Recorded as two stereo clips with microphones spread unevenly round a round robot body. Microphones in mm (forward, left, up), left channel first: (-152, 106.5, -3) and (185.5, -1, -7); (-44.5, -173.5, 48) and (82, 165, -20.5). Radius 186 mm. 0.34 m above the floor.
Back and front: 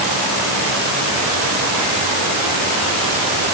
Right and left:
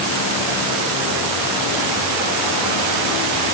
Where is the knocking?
I don't hear knocking.